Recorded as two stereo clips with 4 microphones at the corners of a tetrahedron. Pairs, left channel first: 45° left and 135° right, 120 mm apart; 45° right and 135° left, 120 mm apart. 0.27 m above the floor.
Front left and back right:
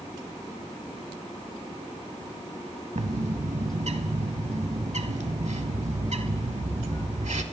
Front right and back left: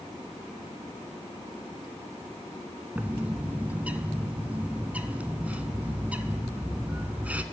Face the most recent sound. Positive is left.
turn(degrees=-150)